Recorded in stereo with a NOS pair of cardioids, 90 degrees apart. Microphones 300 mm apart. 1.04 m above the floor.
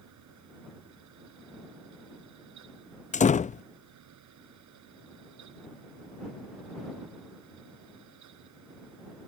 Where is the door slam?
25° left.